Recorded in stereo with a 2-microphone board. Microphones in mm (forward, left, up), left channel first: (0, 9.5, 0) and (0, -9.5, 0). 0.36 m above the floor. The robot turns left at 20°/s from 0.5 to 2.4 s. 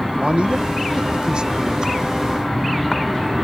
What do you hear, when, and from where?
0.2 s a man speaking: 115° right; by 2.0 s 145° right